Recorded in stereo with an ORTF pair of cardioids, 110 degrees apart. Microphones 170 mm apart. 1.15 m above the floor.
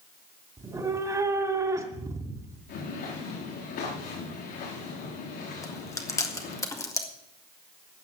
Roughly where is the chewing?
Ahead.